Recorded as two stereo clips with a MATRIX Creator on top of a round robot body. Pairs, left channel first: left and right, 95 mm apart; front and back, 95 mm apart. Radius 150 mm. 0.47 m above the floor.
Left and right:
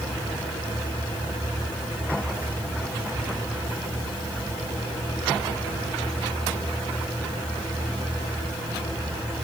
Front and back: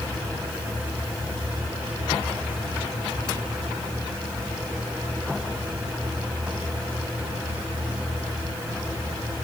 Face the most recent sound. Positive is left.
No sound to turn to.